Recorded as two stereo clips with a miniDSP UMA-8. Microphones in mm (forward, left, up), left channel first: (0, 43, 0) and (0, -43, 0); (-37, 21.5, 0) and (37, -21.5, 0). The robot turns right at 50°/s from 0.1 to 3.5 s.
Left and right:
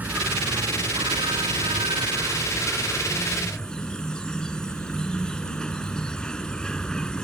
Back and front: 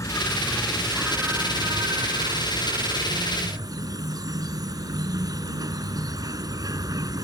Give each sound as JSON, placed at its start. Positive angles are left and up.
{"t": 0.0, "sound": "an insect", "azimuth_deg": -160}